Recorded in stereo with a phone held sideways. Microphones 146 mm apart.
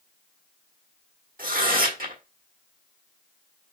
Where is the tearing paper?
75° right (ahead or behind), 1.4 m.